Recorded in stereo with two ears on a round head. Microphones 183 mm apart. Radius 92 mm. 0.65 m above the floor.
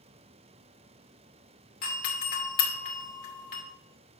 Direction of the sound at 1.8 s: 45° left (ahead or behind).